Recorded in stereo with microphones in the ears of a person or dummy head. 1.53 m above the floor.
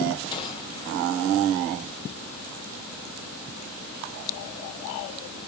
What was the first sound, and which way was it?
A gunshot, 25° left (ahead or behind).